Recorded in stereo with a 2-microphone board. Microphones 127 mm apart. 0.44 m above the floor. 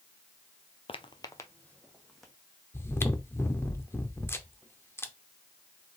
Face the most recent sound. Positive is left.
turn(degrees=20)  # may be behind; listen again after turning